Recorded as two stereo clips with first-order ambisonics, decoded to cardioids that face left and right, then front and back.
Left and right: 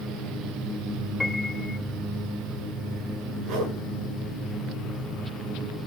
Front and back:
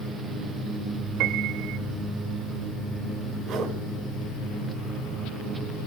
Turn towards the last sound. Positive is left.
turn(degrees=-130)